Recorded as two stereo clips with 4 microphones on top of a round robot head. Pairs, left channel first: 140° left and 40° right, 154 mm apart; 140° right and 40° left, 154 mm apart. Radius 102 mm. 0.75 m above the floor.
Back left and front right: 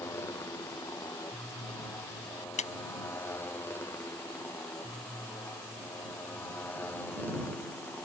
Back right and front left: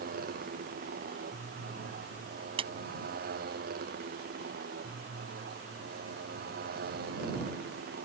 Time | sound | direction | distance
0.0 | a motorcycle | 70° left | ?
2.6 | a clap | 95° left | ?